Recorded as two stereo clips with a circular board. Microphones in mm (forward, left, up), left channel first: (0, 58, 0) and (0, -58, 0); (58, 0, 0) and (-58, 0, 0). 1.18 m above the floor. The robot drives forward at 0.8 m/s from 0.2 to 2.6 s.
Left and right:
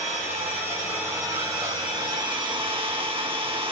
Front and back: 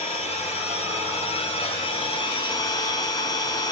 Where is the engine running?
20° right, 3 m; by 3.7 s 50° right, 1.6 m.